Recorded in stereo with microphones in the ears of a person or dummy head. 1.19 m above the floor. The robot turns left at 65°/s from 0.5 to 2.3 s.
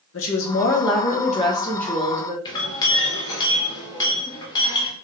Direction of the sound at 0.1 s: 90° left.